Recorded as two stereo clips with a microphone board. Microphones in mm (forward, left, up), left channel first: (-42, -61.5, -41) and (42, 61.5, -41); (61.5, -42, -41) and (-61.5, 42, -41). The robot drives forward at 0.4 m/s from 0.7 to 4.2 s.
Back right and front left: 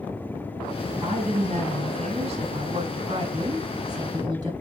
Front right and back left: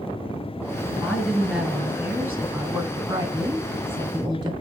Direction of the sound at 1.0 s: 55° left.